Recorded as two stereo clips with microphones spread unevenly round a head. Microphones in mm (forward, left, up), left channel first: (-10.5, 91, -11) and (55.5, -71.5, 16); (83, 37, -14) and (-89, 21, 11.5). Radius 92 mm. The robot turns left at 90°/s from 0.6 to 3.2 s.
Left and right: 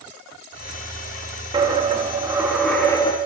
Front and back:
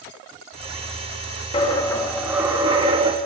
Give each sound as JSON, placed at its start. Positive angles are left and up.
{"t": 1.5, "sound": "a dropped coin", "azimuth_deg": -45, "distance_m": 1.1}